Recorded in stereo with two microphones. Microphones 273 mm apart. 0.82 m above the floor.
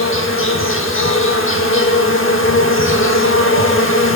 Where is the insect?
50° left (ahead or behind), 0.8 m.